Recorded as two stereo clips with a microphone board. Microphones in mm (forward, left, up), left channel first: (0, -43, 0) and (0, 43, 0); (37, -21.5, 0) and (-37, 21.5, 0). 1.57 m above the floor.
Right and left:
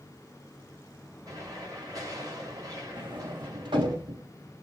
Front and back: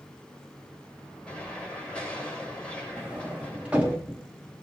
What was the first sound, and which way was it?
An explosion, 50° left.